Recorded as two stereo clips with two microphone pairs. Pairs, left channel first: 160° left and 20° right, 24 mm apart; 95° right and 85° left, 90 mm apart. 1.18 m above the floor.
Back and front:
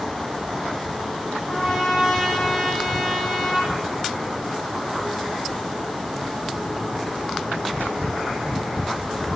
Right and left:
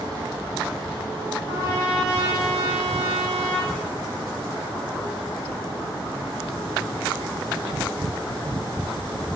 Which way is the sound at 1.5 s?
35° right.